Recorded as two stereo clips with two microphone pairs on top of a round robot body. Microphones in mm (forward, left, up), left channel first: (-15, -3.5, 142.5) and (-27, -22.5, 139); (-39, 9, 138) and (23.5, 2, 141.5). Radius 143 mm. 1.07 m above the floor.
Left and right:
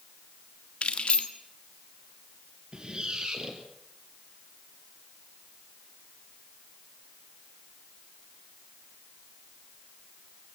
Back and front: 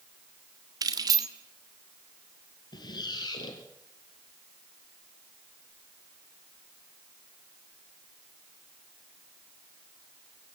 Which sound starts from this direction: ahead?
Keys jangling, at 0.8 s.